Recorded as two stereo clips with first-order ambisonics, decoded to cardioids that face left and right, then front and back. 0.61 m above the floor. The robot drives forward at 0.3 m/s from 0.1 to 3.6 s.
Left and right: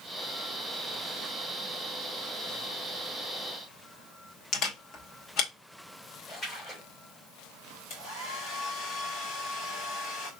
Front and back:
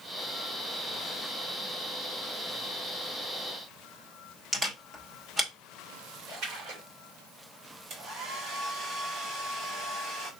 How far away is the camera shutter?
About 1.3 m.